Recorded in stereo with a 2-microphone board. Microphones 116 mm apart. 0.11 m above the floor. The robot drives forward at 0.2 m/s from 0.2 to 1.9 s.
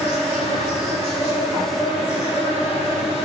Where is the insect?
85° left, 1.3 m; by 3.2 s 80° left, 1.3 m.